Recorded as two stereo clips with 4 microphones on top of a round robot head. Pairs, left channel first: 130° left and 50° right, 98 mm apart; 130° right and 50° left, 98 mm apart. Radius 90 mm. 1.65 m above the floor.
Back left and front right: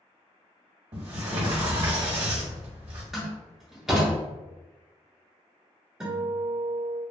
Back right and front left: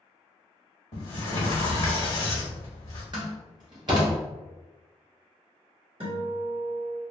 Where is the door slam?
30° left, 0.5 m.